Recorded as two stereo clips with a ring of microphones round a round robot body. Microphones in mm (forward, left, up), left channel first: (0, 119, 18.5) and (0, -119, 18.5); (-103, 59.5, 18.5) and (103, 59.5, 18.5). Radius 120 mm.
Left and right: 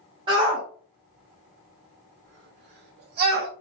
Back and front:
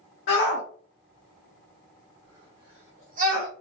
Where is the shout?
155° right, 1.1 m; by 3.5 s 45° right, 1.3 m.